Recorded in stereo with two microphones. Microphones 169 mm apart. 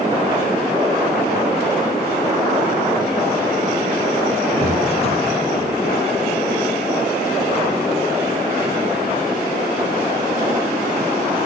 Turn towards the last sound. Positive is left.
turn(degrees=35)  # may be behind; listen again after turning